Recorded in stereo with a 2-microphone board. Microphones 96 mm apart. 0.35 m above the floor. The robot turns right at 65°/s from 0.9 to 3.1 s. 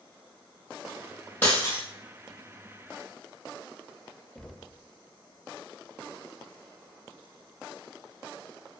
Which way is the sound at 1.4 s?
15° left (ahead or behind).